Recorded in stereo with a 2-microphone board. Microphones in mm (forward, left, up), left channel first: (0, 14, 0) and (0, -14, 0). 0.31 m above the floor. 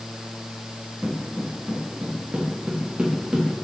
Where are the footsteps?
60° right (ahead or behind), 2.5 m; by 3.5 s 45° right (ahead or behind), 4 m.